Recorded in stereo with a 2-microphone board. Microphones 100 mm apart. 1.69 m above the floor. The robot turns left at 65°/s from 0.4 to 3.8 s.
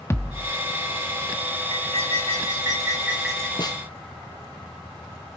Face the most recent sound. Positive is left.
turn(degrees=35)  # may be behind; listen again after turning